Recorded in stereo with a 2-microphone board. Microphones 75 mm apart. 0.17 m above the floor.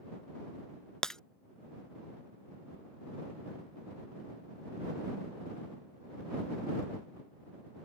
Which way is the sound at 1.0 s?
10° left (ahead or behind).